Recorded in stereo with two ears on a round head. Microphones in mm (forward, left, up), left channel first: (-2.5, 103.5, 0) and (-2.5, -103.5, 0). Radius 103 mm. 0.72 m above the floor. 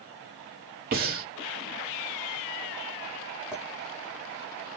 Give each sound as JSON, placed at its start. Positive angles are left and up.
{"t": 0.9, "sound": "breathing", "side_deg": -40, "distance_m": 1.8}
{"t": 3.5, "sound": "a clink", "side_deg": -5, "distance_m": 2.5}